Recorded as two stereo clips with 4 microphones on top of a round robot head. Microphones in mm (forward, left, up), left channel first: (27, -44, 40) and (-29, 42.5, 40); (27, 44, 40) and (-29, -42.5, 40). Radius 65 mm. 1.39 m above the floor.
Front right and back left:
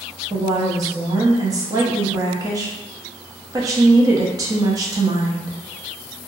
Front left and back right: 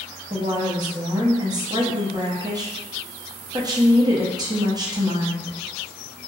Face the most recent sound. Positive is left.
turn(degrees=-175)